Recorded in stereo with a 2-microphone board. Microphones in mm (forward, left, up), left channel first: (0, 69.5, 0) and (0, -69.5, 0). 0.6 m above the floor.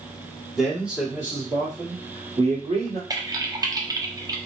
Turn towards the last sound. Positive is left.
turn(degrees=-25)  # may be behind; listen again after turning